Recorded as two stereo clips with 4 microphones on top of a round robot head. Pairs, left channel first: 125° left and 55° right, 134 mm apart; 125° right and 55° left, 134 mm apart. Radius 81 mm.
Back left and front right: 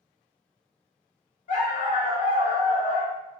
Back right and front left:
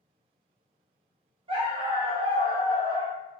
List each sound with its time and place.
1.5 s a dog barking: 100° left, 0.8 m